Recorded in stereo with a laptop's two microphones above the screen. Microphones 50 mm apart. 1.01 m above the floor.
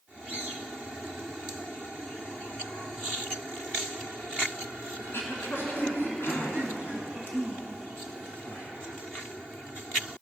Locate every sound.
5.0 s throat clearing: 50° left (ahead or behind), 2.5 m